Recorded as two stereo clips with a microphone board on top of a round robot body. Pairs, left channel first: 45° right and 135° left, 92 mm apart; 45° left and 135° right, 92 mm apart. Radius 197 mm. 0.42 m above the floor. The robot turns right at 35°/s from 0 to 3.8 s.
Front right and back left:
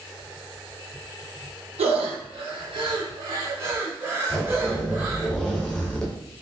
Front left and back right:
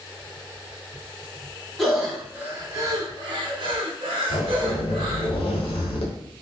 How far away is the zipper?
About 0.9 m.